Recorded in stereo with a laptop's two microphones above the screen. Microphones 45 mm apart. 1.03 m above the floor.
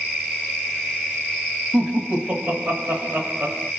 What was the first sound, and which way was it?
Laughter, 40° right (ahead or behind).